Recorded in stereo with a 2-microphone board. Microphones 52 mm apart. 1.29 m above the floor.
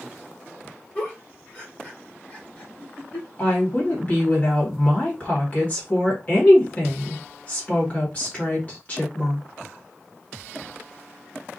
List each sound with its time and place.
0.9 s a giggle: 30° left (ahead or behind), 1.2 m
3.4 s a woman speaking: 30° left (ahead or behind), 1.5 m